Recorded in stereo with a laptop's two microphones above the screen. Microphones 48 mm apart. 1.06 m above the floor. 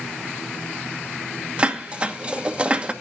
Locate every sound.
1.6 s dishes clattering: 25° right (ahead or behind), 1.0 m